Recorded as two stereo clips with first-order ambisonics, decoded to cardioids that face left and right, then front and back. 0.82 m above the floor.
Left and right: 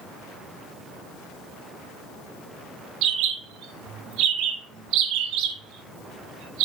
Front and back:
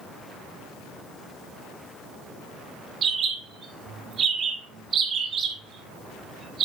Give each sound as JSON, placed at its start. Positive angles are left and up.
{"t": 3.0, "sound": "a bird", "azimuth_deg": -115, "distance_m": 2.0}